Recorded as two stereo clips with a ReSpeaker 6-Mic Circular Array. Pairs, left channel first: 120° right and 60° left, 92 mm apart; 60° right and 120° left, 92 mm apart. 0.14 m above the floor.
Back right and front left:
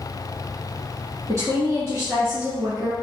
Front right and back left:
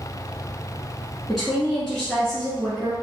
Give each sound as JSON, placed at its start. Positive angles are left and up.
{"t": 1.3, "sound": "a woman speaking", "azimuth_deg": 30, "distance_m": 1.2}